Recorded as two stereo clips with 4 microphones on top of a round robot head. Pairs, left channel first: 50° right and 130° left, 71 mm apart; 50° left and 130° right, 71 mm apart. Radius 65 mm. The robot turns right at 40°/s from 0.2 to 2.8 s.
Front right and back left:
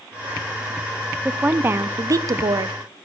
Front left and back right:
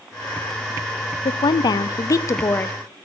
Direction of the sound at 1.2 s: 55° left.